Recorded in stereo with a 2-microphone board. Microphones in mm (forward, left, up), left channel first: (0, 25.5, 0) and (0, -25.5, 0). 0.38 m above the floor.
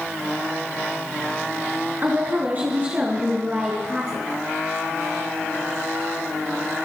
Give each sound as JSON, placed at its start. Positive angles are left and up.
{"t": 2.0, "sound": "a woman speaking", "side_deg": -40, "distance_m": 5.5}